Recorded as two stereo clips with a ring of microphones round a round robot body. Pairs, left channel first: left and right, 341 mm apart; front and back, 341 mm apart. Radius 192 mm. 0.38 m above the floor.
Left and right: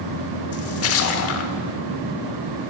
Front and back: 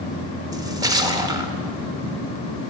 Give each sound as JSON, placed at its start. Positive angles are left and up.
{"t": 0.5, "sound": "a splash", "azimuth_deg": 105, "distance_m": 1.0}